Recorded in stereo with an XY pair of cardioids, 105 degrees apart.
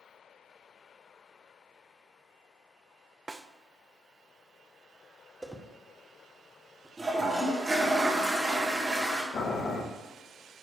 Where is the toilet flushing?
20° right, 2 m.